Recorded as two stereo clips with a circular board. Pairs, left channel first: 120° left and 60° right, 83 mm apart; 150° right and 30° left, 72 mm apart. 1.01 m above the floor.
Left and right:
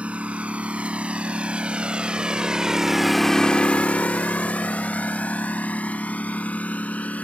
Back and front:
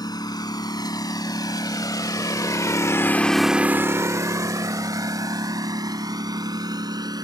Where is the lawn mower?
135° right; by 7.2 s 50° left.